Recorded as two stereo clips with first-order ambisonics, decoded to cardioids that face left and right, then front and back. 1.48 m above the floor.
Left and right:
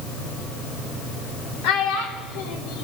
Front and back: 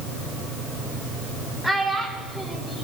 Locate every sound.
1.6 s a child speaking: 85° left, 3 m